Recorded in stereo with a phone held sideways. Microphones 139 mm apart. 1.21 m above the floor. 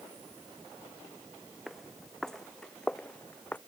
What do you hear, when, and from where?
1.7 s footsteps: centre (ahead or behind); by 3.6 s 10° left (ahead or behind)